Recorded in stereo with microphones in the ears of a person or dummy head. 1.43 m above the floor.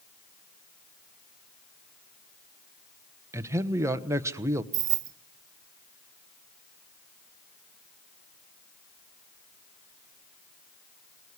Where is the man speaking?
15° right (ahead or behind), 1.2 m.